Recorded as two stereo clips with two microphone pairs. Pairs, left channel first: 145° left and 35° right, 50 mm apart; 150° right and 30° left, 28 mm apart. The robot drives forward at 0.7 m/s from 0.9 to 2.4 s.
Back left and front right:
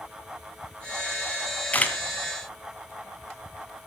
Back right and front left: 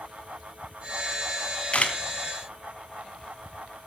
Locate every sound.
1.7 s a camera shutter: 160° right, 2 m; by 2.0 s 165° right, 2 m